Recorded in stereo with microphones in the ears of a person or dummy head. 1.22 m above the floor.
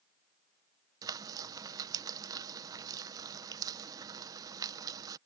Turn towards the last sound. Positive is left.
turn(degrees=-20)  # may be behind; listen again after turning